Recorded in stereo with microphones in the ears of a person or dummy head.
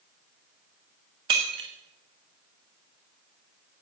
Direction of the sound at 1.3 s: 25° right (ahead or behind).